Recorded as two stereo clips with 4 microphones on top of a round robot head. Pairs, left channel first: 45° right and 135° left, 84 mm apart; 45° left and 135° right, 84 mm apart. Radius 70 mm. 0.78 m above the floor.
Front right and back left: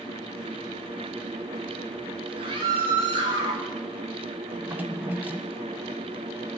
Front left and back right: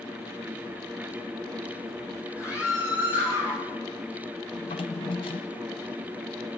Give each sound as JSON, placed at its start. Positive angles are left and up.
{"t": 2.4, "sound": "a scream", "azimuth_deg": 100, "distance_m": 7.0}
{"t": 4.6, "sound": "a drawer", "azimuth_deg": 65, "distance_m": 1.3}